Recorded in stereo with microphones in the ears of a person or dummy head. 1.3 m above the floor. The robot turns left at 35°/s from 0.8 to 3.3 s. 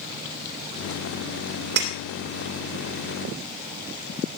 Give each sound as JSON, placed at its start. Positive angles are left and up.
{"t": 1.8, "sound": "breaking glass", "side_deg": -55, "distance_m": 3.0}